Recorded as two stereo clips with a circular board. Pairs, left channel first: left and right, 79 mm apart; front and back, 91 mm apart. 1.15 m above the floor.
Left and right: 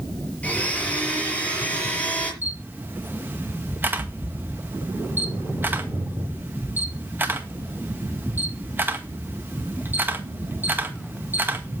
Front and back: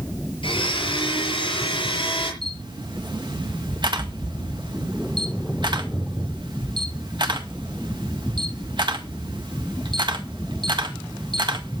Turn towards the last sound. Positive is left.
turn(degrees=-155)